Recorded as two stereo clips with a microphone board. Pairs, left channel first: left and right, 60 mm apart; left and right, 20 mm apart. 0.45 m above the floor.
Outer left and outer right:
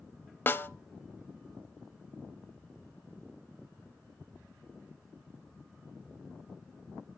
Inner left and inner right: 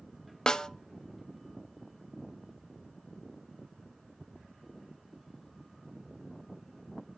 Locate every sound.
0.5 s a snare drum: 35° left (ahead or behind), 0.6 m